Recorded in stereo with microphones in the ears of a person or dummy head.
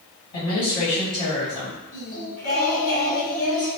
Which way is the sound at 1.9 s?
50° left (ahead or behind).